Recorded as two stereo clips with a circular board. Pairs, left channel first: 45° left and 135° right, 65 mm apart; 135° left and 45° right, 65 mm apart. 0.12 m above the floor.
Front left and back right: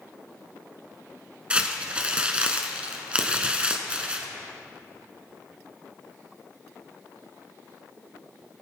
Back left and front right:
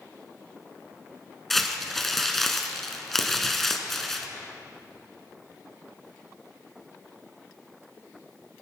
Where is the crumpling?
150° right, 1.2 m.